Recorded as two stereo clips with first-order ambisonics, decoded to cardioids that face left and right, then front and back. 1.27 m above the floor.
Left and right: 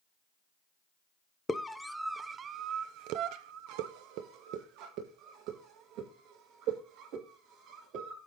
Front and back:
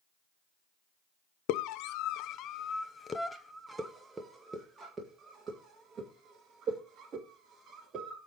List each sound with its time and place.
1.5 s a scream: 15° left, 0.9 m; by 8.3 s 115° right, 3.5 m